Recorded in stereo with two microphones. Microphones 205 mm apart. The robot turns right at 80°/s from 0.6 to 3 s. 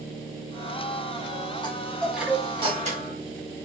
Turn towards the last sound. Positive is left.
turn(degrees=-105)